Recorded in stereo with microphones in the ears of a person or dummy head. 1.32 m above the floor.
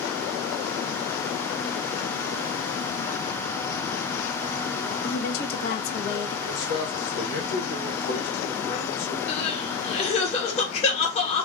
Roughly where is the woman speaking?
Left.